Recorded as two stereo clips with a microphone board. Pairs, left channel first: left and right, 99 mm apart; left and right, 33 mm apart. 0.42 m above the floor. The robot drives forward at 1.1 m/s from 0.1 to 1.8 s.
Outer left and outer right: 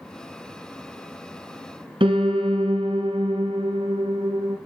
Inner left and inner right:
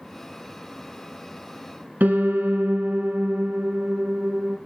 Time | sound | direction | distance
2.0 | a piano | 85° right | 1.5 m